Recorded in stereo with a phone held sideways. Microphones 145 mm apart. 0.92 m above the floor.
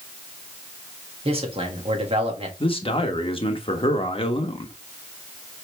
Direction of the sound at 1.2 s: 40° right (ahead or behind).